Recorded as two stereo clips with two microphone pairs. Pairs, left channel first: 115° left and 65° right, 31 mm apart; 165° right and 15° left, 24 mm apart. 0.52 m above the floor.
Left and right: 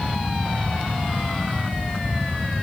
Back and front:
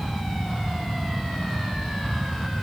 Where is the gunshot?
No gunshot in this recording.